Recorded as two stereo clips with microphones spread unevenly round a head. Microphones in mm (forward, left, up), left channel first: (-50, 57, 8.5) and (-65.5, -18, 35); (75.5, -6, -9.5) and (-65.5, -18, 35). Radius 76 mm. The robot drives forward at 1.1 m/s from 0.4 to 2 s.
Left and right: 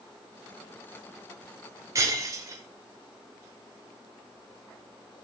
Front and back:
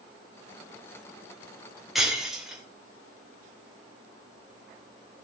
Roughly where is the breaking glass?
Right.